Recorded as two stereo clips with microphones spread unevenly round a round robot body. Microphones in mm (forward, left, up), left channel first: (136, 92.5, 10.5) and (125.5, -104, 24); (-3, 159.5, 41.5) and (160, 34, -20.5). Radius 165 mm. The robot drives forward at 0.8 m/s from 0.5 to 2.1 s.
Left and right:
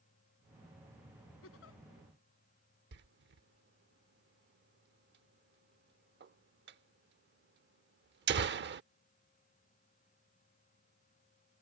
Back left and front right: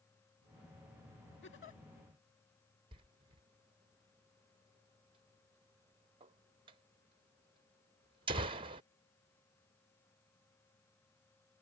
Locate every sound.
1.4 s a giggle: 110° left; by 1.8 s 120° left
2.9 s a door slam: 85° right